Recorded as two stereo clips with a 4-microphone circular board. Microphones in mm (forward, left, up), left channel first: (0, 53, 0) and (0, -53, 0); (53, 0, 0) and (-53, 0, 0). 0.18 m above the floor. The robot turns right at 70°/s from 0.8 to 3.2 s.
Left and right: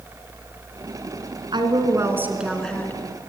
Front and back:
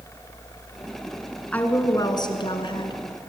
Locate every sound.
1.5 s a woman speaking: 70° right, 2.5 m; by 3.0 s 30° left, 2.5 m